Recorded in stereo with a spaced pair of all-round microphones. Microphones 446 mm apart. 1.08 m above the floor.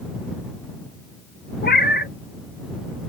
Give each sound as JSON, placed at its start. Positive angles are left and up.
{"t": 1.6, "sound": "a cat meowing", "side_deg": 20}